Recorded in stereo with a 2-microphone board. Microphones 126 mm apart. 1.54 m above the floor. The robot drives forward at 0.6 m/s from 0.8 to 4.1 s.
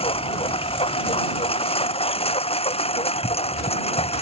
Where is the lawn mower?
50° left (ahead or behind).